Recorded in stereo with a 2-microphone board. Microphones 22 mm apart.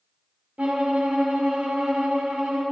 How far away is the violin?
About 1.4 m.